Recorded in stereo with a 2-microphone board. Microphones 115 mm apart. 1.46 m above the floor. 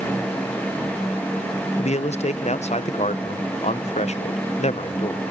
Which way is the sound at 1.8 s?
70° left (ahead or behind).